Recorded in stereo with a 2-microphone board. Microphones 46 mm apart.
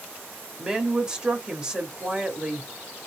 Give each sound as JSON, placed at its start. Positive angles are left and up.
{"t": 0.6, "sound": "a woman speaking", "side_deg": -20, "distance_m": 0.9}